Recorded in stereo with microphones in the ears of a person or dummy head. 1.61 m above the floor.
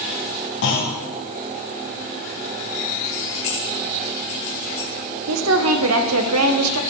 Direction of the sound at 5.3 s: 85° right.